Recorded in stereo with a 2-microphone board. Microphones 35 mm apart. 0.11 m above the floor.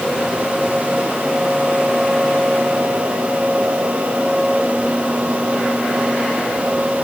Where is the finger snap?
No finger snap in this recording.